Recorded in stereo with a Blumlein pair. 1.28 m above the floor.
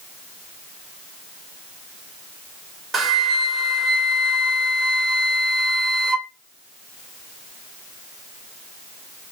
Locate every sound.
2.9 s a flute: 20° right, 0.5 m